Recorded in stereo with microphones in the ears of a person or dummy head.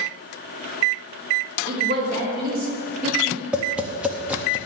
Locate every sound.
1.7 s a woman speaking: 50° right (ahead or behind), 2.5 m; by 3.4 s 40° right (ahead or behind), 1.5 m
3.5 s tapping: 5° right (ahead or behind), 0.6 m